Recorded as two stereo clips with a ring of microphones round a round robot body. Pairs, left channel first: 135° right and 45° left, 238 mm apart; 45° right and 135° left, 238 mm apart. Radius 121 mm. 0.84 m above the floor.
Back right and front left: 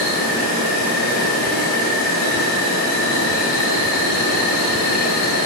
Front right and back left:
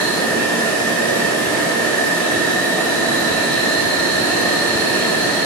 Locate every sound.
0.0 s an insect: 130° right, 5 m